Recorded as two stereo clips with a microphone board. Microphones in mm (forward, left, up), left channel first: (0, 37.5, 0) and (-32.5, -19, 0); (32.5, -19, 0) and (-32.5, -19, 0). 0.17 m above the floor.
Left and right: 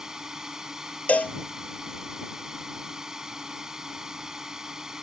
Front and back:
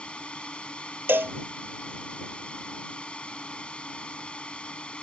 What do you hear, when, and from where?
0.0 s a drone: 50° right
1.1 s a cowbell: 125° left